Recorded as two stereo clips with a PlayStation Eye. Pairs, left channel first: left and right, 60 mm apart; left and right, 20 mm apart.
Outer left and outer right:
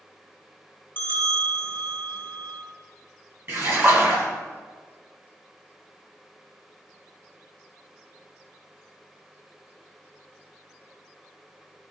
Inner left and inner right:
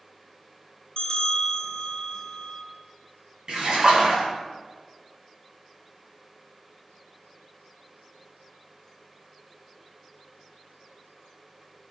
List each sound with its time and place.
1.0 s a bell: 30° left (ahead or behind), 1.8 m
3.5 s a splash: 40° right (ahead or behind), 2 m